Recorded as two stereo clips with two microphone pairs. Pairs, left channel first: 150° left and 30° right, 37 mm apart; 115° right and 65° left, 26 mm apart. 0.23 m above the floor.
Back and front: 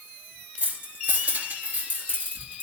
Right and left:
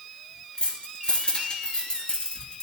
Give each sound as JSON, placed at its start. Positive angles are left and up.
{"t": 0.6, "sound": "keys jangling", "azimuth_deg": -65, "distance_m": 3.0}